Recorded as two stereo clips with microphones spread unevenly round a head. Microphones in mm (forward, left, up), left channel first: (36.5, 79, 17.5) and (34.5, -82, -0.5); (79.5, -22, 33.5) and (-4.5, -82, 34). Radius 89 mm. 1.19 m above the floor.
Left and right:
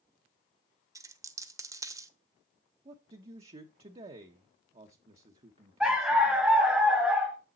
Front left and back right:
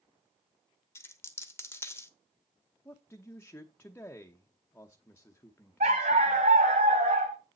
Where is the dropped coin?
20° right, 1.1 m.